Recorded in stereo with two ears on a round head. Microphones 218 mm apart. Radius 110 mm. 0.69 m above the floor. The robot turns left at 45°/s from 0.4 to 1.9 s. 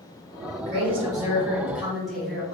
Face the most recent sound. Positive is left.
turn(degrees=180)